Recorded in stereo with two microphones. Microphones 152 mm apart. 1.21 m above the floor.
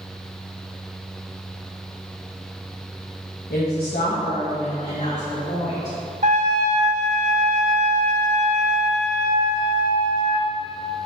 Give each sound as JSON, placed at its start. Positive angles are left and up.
{"t": 3.5, "sound": "a woman speaking", "side_deg": 85, "distance_m": 1.2}
{"t": 6.2, "sound": "a trumpet", "side_deg": -55, "distance_m": 1.3}